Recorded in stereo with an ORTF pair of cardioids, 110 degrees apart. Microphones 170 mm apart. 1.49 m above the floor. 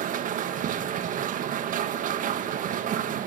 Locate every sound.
0.0 s a machine running: 55° right, 1.8 m